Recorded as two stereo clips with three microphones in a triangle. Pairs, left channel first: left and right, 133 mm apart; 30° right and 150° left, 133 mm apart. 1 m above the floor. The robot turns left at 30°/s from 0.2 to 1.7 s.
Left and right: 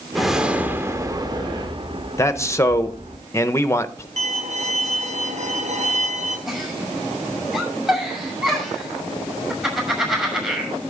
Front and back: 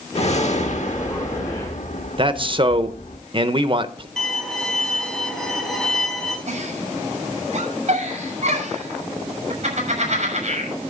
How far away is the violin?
About 3.5 m.